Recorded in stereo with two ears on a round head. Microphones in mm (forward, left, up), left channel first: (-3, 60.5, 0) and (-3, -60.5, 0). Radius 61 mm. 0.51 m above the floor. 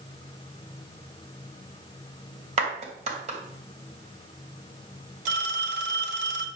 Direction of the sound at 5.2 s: 60° right (ahead or behind).